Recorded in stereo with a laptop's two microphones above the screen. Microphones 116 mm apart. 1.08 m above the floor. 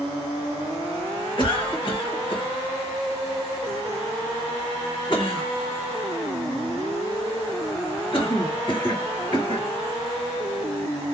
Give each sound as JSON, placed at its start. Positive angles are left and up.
{"t": 1.4, "sound": "a cough", "side_deg": 45, "distance_m": 1.5}